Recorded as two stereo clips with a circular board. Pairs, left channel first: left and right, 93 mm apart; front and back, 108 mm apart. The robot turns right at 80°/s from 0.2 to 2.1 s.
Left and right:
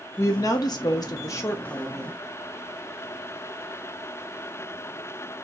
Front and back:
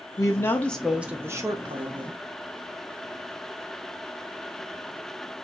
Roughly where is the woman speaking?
Ahead left.